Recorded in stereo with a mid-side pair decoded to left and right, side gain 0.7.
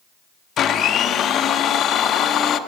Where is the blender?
40° left, 0.6 m.